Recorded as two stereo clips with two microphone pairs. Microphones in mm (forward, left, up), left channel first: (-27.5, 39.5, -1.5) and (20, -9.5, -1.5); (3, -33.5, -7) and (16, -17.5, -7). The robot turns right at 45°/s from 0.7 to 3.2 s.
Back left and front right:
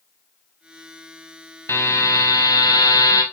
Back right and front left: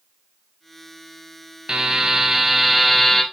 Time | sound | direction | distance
1.7 | a buzzer | 85° left | 0.7 m